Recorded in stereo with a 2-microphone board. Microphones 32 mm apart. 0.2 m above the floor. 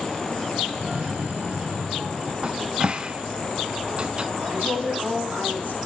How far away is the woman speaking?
About 6.5 m.